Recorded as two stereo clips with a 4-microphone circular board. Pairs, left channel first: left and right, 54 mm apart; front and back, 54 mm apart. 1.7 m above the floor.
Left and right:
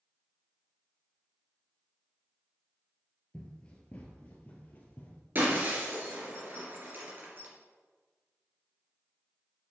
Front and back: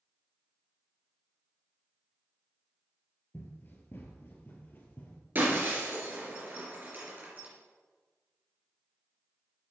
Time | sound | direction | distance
3.3 | running footsteps | 25° left | 2 m
5.3 | breaking glass | 135° right | 3.5 m